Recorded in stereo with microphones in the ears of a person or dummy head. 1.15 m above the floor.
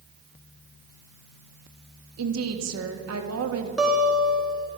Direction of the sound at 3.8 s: Centre (ahead or behind).